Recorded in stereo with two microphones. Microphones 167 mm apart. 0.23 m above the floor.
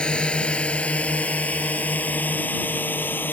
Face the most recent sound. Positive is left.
turn(degrees=10)  # may be behind; listen again after turning